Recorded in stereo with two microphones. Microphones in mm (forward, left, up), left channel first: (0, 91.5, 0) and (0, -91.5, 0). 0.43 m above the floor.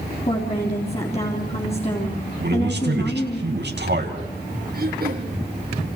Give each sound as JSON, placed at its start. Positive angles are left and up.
{"t": 0.3, "sound": "a woman speaking", "side_deg": 35, "distance_m": 3.5}
{"t": 2.4, "sound": "a man speaking", "side_deg": -70, "distance_m": 4.0}
{"t": 4.7, "sound": "throat clearing", "side_deg": -55, "distance_m": 3.0}